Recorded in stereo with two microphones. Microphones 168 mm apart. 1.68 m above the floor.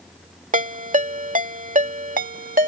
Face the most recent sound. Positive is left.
turn(degrees=-55)  # may be behind; listen again after turning